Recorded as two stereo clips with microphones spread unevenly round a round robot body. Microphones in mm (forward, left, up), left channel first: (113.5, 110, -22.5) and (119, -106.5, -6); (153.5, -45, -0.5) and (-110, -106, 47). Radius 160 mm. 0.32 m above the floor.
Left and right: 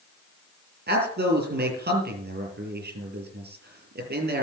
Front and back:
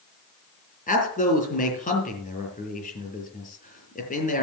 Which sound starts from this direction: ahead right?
A man speaking, at 0.9 s.